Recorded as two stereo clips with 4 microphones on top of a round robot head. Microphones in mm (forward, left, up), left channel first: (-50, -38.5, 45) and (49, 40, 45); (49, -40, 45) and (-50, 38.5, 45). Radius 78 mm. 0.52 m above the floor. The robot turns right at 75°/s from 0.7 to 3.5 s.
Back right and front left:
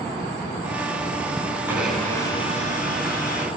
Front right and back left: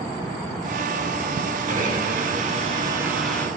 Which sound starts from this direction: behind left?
A blender, at 1.7 s.